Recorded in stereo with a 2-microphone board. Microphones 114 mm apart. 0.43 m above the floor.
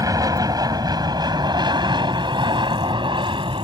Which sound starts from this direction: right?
An aircraft, at 0.0 s.